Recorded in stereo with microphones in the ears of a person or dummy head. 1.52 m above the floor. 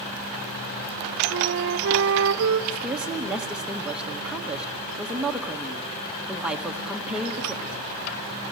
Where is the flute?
65° right (ahead or behind), 1.0 m.